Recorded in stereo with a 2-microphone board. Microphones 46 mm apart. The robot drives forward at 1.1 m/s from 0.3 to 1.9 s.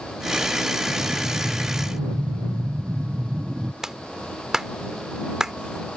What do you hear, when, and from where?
0.9 s breathing: 30° right (ahead or behind); by 3.7 s 40° right (ahead or behind)
3.8 s a clap: 10° right (ahead or behind)